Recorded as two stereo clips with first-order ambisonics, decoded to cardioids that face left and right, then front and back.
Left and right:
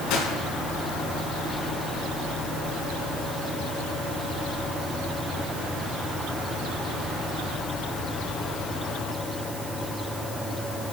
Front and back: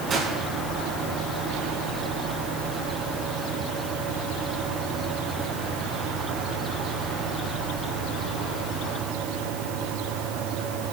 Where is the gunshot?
120° left, 5 m.